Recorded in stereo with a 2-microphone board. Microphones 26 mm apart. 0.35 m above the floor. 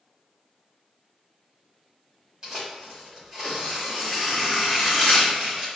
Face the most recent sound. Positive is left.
turn(degrees=-30)  # may be behind; listen again after turning